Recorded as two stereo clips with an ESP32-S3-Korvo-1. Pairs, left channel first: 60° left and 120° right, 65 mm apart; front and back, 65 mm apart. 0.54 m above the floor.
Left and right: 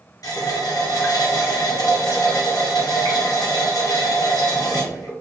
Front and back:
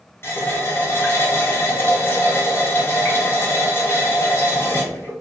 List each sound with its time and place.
0.2 s a running tap: 50° left, 1.0 m